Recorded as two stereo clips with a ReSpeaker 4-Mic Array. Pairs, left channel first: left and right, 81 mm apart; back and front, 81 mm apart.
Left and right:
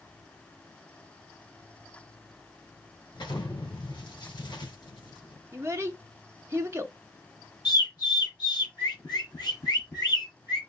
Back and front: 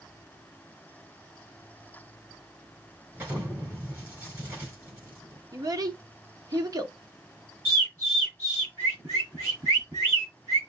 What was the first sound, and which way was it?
An explosion, 65° left.